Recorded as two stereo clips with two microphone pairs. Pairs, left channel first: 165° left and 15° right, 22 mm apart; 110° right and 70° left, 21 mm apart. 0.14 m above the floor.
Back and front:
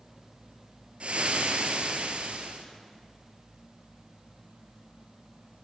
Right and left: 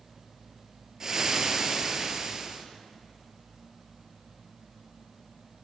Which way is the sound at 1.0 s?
10° left.